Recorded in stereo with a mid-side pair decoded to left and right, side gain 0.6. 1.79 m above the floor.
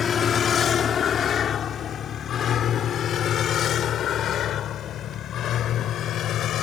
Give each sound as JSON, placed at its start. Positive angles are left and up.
{"t": 0.0, "sound": "a vehicle", "azimuth_deg": 35}